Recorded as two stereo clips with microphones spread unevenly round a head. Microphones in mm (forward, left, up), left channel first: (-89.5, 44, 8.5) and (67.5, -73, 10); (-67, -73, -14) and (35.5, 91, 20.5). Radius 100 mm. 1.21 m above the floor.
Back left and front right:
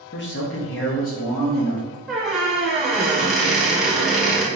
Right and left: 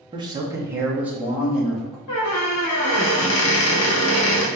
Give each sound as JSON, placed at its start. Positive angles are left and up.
{"t": 0.1, "sound": "a man speaking", "azimuth_deg": 125, "distance_m": 0.8}
{"t": 2.1, "sound": "a squeak", "azimuth_deg": -125, "distance_m": 1.0}